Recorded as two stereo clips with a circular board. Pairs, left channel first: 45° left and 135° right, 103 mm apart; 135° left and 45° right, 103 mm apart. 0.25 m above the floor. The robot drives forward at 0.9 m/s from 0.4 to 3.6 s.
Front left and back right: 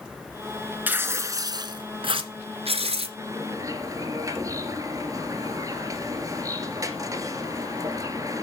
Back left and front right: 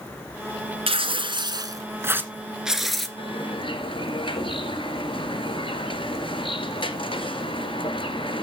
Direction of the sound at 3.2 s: 165° left.